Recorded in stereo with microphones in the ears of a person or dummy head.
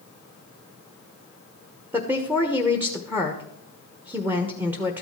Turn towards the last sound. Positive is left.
turn(degrees=-15)  # may be behind; listen again after turning